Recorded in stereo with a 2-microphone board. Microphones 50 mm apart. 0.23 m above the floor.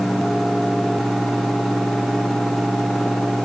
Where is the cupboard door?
I don't hear a cupboard door.